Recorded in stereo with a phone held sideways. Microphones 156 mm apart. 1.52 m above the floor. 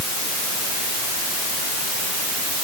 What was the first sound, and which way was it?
Only background noise.